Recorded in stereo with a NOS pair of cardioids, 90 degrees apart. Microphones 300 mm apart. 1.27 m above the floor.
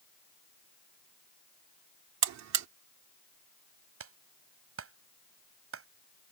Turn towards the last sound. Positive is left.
turn(degrees=-50)